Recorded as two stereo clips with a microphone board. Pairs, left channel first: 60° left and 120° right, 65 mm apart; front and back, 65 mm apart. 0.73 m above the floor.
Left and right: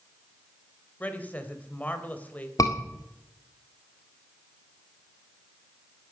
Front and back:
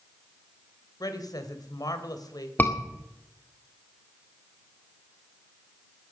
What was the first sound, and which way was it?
A woman speaking, 5° right.